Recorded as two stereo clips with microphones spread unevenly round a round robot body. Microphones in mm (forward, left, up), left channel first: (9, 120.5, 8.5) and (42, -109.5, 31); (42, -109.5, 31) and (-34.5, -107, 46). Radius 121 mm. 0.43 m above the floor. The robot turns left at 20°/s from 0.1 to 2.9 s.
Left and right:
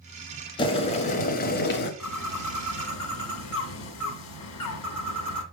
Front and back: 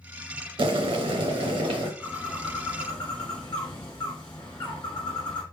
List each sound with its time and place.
0.6 s boiling: 170° left, 0.8 m; by 1.9 s 140° left, 0.8 m
2.0 s a bird: 90° left, 1.1 m; by 5.4 s 75° left, 1.1 m